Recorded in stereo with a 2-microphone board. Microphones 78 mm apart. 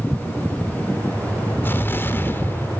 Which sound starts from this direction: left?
An explosion, at 1.6 s.